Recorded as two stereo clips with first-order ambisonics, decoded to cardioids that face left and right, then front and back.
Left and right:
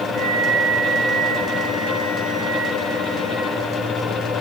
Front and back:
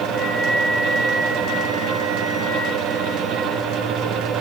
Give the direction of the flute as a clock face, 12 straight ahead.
2 o'clock.